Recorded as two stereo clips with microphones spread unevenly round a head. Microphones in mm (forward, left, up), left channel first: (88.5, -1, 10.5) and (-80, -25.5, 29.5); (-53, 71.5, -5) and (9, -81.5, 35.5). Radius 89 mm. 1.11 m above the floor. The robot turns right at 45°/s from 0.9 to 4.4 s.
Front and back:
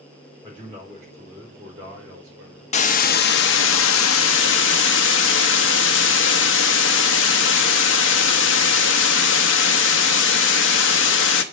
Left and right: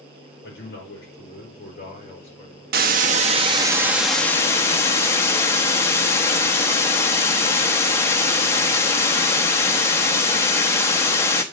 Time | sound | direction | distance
0.4 | a man speaking | 105° left | 4.5 m
2.7 | a hiss | 45° right | 0.7 m